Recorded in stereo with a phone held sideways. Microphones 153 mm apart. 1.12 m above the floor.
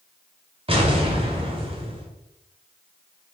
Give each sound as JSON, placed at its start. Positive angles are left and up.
{"t": 0.7, "sound": "an explosion", "side_deg": -40, "distance_m": 3.0}